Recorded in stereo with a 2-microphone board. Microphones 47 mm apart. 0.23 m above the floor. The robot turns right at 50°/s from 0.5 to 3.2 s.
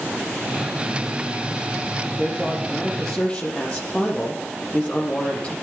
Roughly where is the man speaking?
Ahead right.